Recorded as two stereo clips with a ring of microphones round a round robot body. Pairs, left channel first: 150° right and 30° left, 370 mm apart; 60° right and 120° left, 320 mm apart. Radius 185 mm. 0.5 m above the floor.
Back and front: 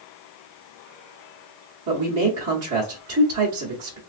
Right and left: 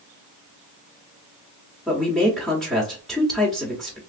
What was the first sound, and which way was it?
A man speaking, 30° left.